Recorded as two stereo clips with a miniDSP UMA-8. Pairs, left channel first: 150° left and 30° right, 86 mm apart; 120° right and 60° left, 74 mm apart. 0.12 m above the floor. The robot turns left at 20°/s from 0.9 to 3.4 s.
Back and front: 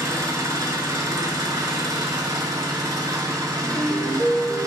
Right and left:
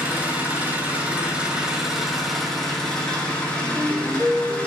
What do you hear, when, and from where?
0.0 s an engine running: straight ahead, 1.1 m; by 4.7 s 50° right, 1.1 m
3.6 s a ringtone: 150° left, 1.8 m